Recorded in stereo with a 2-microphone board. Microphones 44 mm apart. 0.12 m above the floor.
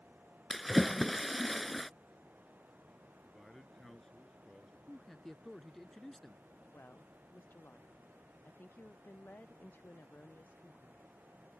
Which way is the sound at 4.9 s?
10° left (ahead or behind).